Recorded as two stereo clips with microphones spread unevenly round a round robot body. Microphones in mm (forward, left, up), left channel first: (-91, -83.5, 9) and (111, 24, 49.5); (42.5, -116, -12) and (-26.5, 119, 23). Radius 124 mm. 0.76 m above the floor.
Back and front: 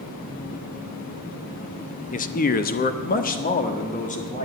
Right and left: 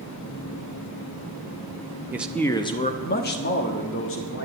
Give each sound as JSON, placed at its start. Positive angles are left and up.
{"t": 2.1, "sound": "a man speaking", "azimuth_deg": -170, "distance_m": 0.8}